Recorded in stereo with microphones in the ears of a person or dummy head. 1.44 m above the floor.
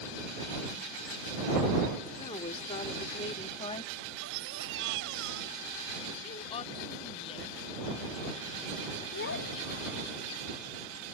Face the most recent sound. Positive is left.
turn(degrees=65)  # may be behind; listen again after turning